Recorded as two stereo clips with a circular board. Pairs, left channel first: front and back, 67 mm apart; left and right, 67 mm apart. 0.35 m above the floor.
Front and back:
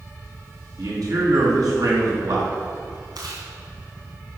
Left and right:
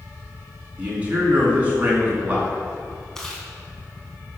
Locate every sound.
0.8 s a man speaking: 155° right, 4.5 m
3.1 s chewing: 170° left, 2.5 m